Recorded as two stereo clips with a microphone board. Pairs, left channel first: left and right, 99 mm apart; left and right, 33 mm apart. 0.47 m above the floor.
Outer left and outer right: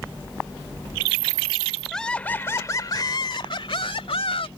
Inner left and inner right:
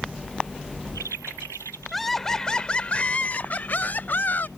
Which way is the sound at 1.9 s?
5° left (ahead or behind).